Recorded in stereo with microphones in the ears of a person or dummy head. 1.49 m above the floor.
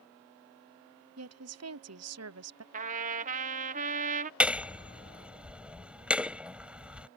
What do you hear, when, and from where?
1.2 s a woman speaking: 70° right (ahead or behind)
2.7 s a trumpet: 45° right (ahead or behind)
4.4 s hammering: 10° right (ahead or behind)